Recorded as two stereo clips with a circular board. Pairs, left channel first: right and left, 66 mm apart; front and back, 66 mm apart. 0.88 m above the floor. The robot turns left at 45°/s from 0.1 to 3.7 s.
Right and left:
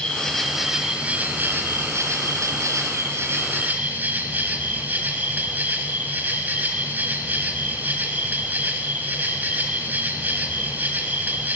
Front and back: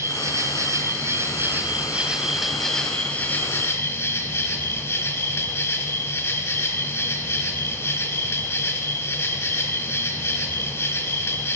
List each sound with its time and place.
0.0 s an insect: 160° right, 1.0 m; by 11.6 s 35° left, 1.0 m